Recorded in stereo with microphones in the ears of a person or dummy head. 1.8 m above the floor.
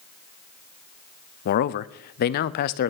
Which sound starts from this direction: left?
A man speaking, at 1.4 s.